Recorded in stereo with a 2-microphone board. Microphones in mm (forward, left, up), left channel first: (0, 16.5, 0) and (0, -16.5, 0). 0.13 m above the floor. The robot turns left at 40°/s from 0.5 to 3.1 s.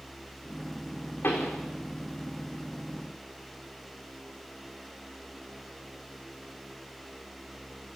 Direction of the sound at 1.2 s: 65° left (ahead or behind).